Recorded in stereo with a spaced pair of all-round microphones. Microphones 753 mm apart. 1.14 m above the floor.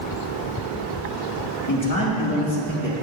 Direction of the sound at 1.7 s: 25° left (ahead or behind).